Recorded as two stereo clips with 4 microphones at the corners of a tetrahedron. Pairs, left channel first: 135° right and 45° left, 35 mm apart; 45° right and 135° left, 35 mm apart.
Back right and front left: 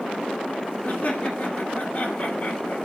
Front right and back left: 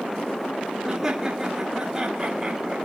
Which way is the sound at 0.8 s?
155° right.